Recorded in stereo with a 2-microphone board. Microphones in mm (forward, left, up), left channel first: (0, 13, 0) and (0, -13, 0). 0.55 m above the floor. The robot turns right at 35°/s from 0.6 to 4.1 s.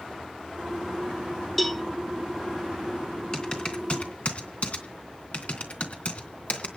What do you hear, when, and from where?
1.6 s a cowbell: 5° left (ahead or behind), 0.7 m; by 1.8 s centre (ahead or behind), 0.7 m
3.3 s typing on a keyboard: 25° left (ahead or behind), 3 m; by 6.7 s 55° left (ahead or behind), 3 m